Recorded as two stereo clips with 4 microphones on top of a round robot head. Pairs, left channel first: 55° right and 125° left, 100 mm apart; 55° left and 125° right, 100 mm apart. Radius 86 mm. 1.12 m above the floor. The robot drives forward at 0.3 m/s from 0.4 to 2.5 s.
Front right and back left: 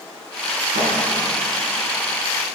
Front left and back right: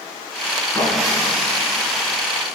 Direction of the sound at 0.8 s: 125° left.